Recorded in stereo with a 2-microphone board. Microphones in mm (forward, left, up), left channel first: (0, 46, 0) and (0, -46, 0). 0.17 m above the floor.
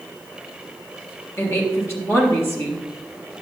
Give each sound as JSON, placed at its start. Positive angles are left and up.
{"t": 1.4, "sound": "a woman speaking", "side_deg": 25, "distance_m": 3.5}